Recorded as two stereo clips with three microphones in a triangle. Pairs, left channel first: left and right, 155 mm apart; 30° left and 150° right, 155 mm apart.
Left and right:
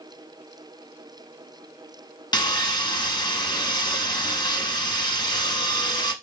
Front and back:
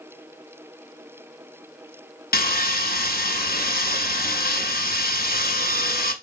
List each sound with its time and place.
2.3 s sawing: 30° left, 0.7 m